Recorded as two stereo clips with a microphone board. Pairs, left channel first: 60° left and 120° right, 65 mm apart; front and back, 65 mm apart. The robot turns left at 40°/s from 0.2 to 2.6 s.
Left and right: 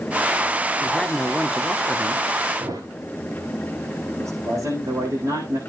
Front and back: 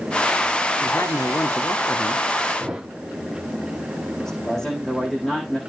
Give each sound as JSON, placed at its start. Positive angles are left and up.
{"t": 0.8, "sound": "a woman speaking", "azimuth_deg": -10, "distance_m": 1.6}
{"t": 2.6, "sound": "a thud", "azimuth_deg": -100, "distance_m": 5.5}
{"t": 4.2, "sound": "a man speaking", "azimuth_deg": -85, "distance_m": 7.0}